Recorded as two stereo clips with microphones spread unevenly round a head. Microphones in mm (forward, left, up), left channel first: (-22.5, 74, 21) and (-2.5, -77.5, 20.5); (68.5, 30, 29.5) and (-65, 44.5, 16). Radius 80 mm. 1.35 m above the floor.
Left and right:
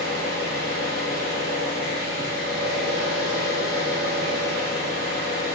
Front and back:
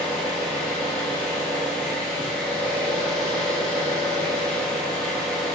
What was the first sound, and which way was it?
An engine running, 75° left.